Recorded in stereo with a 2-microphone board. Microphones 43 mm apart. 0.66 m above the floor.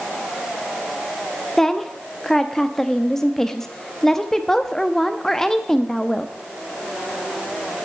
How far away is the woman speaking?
About 0.6 m.